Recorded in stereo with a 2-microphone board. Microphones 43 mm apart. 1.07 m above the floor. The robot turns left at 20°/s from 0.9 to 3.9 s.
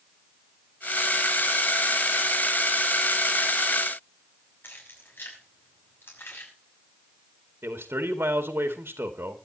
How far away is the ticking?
No ticking in this recording.